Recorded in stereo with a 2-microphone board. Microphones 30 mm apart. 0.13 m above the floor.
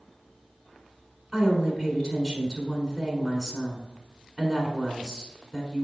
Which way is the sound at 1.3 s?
10° left (ahead or behind).